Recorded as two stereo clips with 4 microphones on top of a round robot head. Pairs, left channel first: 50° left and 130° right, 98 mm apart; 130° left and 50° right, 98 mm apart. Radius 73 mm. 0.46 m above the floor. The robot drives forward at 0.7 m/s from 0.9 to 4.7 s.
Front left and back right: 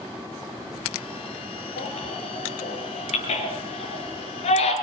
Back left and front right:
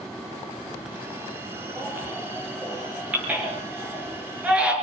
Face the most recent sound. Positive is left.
turn(degrees=30)